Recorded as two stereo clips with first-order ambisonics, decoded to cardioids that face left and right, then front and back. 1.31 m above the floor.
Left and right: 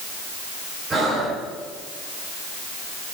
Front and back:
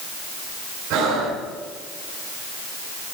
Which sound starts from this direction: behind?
Breathing, at 0.9 s.